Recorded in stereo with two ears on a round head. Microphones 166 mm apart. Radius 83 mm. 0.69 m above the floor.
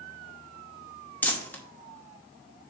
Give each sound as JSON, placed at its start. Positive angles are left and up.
{"t": 1.2, "sound": "crumpling", "side_deg": 10, "distance_m": 1.0}